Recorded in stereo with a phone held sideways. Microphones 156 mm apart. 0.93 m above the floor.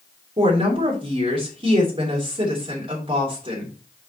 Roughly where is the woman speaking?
Right.